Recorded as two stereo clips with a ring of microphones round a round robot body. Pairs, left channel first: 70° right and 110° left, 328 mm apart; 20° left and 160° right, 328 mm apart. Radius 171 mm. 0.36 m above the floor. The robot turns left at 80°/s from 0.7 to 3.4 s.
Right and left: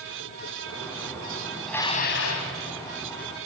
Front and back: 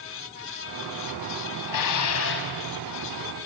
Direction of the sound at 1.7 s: 25° left.